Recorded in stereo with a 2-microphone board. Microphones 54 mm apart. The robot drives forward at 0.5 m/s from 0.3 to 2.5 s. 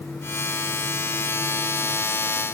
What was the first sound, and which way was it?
Only background noise.